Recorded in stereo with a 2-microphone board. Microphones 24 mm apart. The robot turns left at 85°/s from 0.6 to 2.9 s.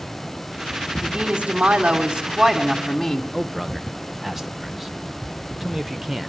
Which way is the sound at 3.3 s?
15° right (ahead or behind).